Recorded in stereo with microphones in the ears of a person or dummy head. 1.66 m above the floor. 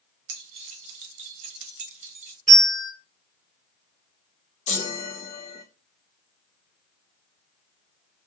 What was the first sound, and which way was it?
Keys jangling, 40° right (ahead or behind).